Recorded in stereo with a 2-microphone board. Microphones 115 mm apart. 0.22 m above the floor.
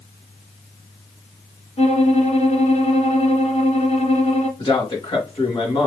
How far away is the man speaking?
About 3 m.